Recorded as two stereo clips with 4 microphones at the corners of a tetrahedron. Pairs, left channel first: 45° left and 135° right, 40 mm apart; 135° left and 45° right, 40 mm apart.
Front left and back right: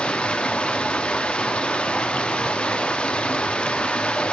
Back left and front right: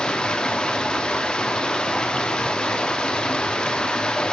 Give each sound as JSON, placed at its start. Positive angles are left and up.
{"t": 0.0, "sound": "running water", "azimuth_deg": 90, "distance_m": 0.7}